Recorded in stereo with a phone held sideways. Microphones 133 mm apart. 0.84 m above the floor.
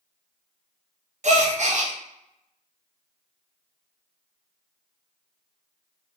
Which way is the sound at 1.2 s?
60° right (ahead or behind).